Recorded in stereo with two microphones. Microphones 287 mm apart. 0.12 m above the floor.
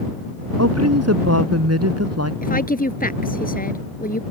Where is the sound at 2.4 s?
30° left (ahead or behind).